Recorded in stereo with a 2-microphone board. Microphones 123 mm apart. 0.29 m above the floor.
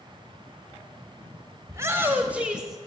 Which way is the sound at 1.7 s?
25° right (ahead or behind).